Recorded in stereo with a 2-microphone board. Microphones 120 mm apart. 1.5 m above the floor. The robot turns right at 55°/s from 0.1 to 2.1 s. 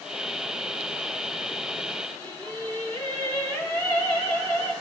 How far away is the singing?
About 5.5 m.